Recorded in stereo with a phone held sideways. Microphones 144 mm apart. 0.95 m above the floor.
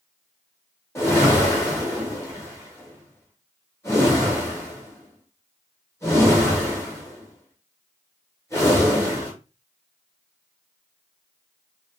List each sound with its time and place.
0.9 s a whoosh: 20° left (ahead or behind), 1.0 m